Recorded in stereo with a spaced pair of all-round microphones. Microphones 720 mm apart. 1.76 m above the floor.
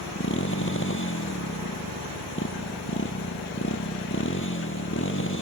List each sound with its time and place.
0.0 s a motorcycle: 15° left (ahead or behind)